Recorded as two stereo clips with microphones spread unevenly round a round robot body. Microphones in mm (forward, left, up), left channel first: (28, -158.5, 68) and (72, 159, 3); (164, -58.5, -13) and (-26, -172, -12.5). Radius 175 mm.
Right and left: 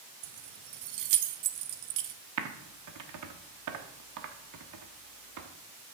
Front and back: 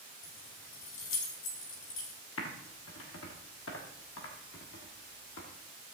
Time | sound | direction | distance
0.2 | keys jangling | 75° left | 0.8 m
2.4 | typing on a keyboard | 75° left | 1.2 m